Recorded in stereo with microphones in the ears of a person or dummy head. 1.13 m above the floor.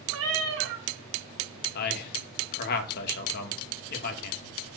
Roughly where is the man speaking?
Left.